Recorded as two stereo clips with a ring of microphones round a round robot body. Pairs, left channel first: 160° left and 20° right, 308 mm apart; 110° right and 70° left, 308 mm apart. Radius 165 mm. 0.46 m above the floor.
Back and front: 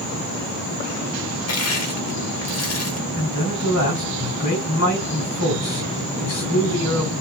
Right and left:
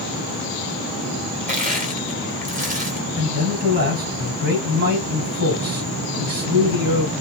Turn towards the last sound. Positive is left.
turn(degrees=125)